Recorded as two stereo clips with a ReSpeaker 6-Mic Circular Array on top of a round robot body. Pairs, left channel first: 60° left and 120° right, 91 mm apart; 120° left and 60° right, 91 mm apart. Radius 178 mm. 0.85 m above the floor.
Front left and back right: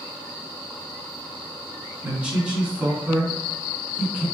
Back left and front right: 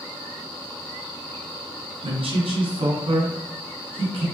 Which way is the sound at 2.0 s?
45° right.